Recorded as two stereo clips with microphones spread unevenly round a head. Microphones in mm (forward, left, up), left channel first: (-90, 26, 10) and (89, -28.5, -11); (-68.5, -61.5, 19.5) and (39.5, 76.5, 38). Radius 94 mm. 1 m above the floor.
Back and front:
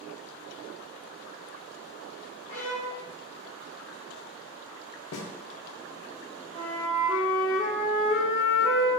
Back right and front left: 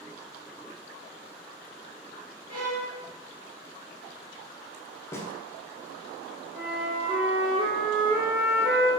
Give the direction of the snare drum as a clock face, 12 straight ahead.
7 o'clock.